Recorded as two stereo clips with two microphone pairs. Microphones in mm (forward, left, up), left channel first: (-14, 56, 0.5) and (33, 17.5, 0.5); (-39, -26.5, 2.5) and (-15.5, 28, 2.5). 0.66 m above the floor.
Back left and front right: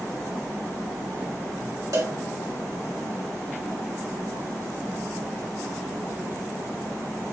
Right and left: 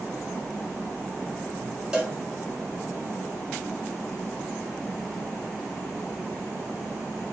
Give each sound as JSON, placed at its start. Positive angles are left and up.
{"t": 1.9, "sound": "a cowbell", "azimuth_deg": -10, "distance_m": 2.0}